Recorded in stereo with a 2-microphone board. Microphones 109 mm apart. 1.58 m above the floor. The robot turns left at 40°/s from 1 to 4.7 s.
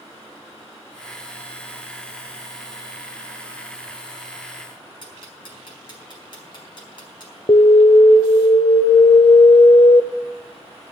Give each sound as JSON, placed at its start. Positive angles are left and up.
{"t": 5.0, "sound": "ticking", "side_deg": 45, "distance_m": 4.0}
{"t": 7.5, "sound": "an alarm", "side_deg": 55, "distance_m": 0.7}